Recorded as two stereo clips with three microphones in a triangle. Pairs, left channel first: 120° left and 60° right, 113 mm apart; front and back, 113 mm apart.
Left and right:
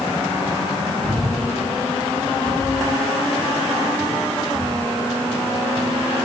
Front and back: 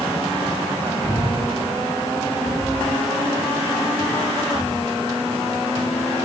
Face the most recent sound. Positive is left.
turn(degrees=75)